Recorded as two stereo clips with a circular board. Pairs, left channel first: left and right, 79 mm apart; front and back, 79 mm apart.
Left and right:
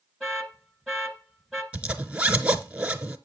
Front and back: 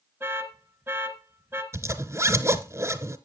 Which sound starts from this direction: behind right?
A zipper, at 1.7 s.